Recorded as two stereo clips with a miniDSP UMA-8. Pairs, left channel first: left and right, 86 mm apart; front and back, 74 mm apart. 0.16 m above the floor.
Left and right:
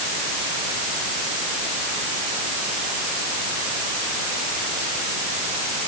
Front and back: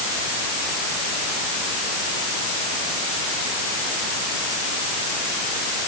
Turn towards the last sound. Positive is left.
No sound to turn to.